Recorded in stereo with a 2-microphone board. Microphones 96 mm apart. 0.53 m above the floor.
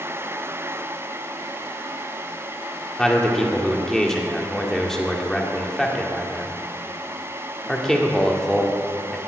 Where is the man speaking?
5° left (ahead or behind), 1.6 m.